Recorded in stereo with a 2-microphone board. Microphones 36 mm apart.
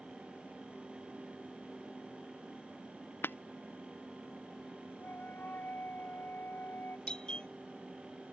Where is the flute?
60° left (ahead or behind).